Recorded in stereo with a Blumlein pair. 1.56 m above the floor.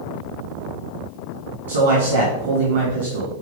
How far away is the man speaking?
About 2.5 m.